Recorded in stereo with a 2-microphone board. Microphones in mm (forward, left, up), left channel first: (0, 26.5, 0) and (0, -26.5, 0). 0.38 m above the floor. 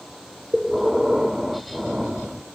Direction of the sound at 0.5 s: 5° right (ahead or behind).